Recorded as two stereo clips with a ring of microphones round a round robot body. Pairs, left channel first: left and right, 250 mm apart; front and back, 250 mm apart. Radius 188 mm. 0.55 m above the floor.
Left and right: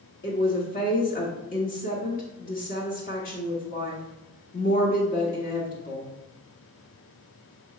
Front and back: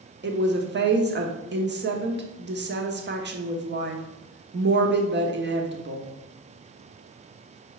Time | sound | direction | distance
0.2 | a woman speaking | 145° left | 1.1 m